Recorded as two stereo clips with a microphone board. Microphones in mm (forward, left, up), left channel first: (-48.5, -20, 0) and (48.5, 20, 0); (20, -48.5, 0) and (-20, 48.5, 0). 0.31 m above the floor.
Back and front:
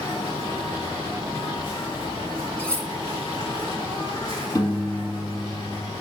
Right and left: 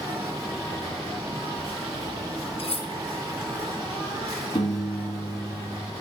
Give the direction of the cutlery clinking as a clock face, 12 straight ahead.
3 o'clock.